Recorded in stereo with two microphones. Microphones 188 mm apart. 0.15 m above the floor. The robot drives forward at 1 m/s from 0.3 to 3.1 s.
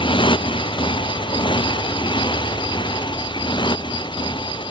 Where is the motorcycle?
25° left (ahead or behind).